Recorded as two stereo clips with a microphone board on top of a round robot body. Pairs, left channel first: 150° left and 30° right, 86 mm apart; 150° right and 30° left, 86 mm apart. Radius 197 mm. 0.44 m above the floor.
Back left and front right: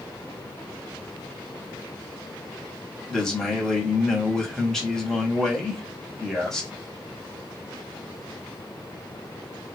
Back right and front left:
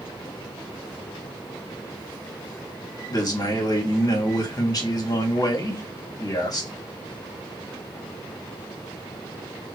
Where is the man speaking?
125° right, 1.6 m.